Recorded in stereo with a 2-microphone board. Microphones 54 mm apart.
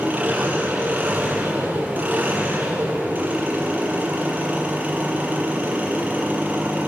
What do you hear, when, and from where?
0.0 s an engine running: 30° right (ahead or behind), 6 m